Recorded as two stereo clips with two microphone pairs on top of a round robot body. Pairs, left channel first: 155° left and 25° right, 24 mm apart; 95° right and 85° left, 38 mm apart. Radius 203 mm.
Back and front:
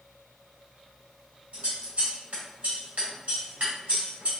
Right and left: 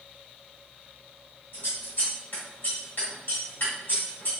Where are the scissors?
60° right, 1.8 m.